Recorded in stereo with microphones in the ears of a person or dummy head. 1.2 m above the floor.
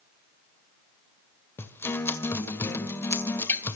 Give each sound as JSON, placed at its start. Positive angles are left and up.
{"t": 1.6, "sound": "a guitar", "side_deg": 15, "distance_m": 1.8}